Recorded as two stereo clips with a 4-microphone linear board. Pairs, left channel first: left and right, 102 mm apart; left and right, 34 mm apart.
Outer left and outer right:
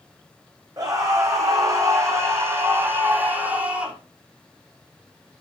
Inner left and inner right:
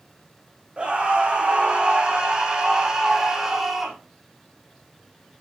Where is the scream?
35° right (ahead or behind), 7 m; by 4.0 s 10° right (ahead or behind), 4.5 m.